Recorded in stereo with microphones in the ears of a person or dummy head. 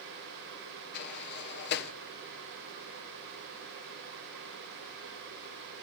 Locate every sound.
0.9 s a sliding door: 55° left (ahead or behind), 1.4 m